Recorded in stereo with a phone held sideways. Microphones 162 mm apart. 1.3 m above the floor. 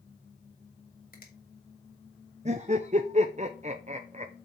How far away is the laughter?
About 0.7 m.